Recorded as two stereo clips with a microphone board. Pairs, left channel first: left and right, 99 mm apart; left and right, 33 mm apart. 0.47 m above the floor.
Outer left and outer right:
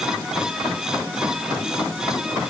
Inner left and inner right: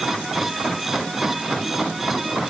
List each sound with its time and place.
Only background noise.